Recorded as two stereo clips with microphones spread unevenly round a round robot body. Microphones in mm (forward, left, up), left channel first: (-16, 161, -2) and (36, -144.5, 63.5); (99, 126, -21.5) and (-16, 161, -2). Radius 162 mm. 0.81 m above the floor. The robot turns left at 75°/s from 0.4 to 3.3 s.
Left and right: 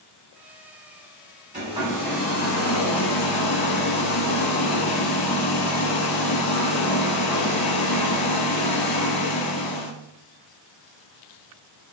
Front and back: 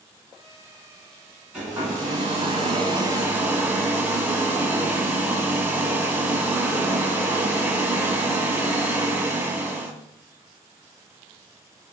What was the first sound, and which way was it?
A hair dryer, 125° right.